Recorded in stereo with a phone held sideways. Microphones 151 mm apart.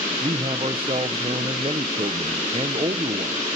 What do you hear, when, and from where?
0.2 s a man speaking: 40° right (ahead or behind), 0.8 m